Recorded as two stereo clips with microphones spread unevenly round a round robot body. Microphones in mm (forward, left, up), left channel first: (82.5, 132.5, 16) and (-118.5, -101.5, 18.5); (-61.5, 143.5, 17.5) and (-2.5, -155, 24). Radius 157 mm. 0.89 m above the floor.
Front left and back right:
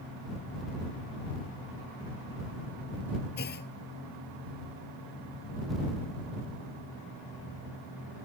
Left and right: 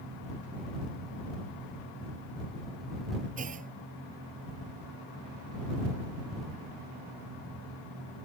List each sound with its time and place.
3.4 s a clunk: 10° right